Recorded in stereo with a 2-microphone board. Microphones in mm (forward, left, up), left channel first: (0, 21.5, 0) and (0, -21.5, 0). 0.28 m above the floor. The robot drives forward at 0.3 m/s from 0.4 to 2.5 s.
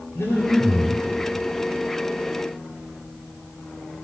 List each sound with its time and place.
0.1 s breathing: 60° left (ahead or behind), 6.5 m